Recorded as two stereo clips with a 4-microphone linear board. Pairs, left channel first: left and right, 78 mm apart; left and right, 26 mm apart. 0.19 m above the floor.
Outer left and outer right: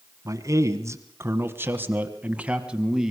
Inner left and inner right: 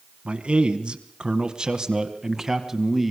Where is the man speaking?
45° right (ahead or behind), 2.0 m; by 3.1 s 5° right (ahead or behind), 1.8 m.